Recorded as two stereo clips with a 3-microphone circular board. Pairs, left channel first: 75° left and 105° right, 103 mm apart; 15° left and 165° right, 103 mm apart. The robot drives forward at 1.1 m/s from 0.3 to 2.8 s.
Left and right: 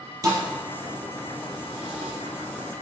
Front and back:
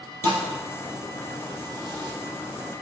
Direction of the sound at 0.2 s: 50° right.